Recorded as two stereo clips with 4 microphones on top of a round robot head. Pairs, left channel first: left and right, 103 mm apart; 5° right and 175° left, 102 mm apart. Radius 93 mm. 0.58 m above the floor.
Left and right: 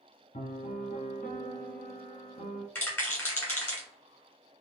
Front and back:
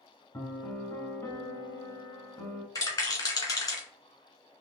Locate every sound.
0.3 s a piano: 60° left, 0.8 m
2.8 s a rattle: 30° left, 1.6 m